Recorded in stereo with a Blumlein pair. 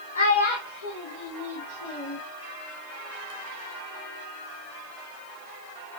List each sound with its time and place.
0.1 s a child speaking: 70° left, 1.0 m; by 2.2 s 40° left, 2 m